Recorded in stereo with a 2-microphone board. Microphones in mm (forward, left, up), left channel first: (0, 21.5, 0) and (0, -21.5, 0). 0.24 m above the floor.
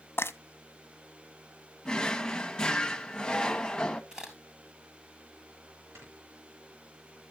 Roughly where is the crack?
Centre.